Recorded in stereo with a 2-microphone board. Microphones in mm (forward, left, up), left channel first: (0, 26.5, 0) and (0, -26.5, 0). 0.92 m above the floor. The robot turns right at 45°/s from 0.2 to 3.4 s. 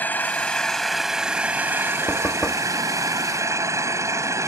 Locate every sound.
0.0 s an engine running: 145° left; by 4.5 s 70° right
2.1 s knocking: 40° left (ahead or behind); by 2.7 s 15° left (ahead or behind)